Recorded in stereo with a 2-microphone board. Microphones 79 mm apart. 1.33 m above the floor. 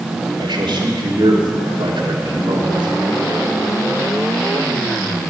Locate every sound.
0.4 s a man speaking: 80° right, 3 m